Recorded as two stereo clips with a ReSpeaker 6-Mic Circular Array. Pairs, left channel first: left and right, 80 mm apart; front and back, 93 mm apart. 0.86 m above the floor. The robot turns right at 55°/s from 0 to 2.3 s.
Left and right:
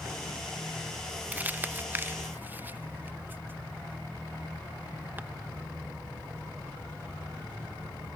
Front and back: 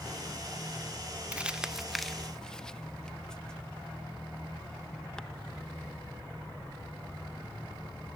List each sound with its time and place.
1.3 s crumpling: 125° right, 0.9 m; by 5.2 s 75° right, 0.9 m